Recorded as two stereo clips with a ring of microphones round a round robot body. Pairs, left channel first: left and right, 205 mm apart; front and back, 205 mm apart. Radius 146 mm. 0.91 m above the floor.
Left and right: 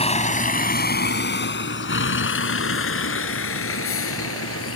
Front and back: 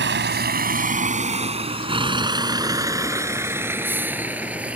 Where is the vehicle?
150° left; by 4.8 s 95° left.